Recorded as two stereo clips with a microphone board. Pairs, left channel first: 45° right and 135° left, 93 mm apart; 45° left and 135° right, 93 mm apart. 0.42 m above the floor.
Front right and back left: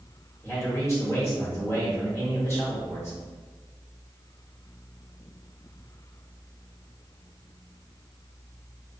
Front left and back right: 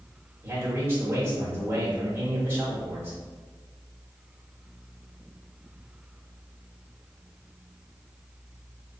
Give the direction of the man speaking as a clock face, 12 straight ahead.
3 o'clock.